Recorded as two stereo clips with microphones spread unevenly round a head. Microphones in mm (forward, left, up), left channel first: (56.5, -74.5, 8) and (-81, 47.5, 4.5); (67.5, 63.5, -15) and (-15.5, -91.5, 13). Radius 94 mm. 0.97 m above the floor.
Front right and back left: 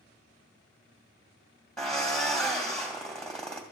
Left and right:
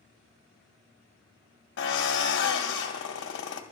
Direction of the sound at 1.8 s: 45° left.